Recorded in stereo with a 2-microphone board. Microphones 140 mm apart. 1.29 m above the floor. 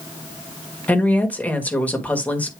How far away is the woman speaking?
About 1.7 m.